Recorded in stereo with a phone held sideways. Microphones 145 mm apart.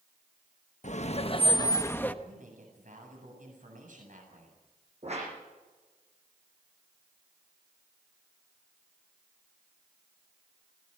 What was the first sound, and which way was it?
Laughter, 55° left (ahead or behind).